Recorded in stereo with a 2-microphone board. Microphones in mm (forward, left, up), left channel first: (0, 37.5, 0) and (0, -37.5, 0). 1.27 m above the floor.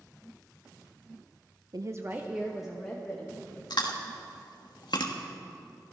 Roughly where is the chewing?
Left.